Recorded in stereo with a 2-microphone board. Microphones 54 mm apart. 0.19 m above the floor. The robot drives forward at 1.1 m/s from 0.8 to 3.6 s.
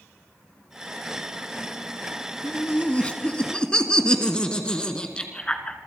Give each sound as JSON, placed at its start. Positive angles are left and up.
{"t": 2.4, "sound": "laughter", "side_deg": 30, "distance_m": 1.1}